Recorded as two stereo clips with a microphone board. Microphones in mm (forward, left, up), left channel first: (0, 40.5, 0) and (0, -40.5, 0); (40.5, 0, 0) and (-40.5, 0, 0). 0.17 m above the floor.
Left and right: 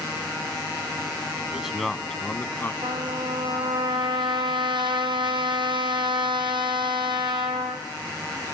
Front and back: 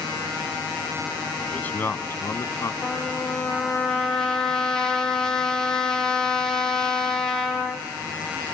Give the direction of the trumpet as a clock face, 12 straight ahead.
3 o'clock.